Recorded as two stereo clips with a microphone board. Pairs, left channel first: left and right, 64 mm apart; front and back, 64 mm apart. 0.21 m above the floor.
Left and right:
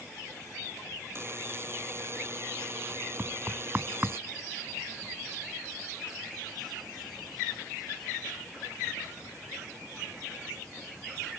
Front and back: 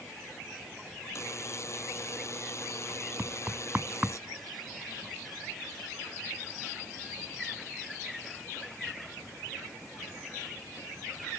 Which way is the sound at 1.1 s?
40° right.